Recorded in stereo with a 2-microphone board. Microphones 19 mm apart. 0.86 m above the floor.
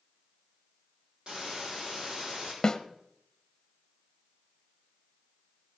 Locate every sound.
1.3 s a hiss: 45° right (ahead or behind), 6 m
2.6 s a snare drum: 30° left (ahead or behind), 1.0 m